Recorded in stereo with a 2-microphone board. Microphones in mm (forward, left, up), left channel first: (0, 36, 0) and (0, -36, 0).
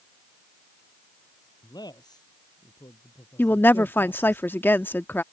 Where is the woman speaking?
30° left (ahead or behind).